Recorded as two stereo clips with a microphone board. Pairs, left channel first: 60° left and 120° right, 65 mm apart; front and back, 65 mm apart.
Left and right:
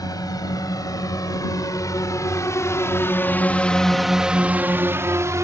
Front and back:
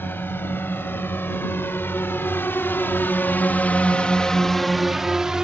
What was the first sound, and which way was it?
A drone, 55° left.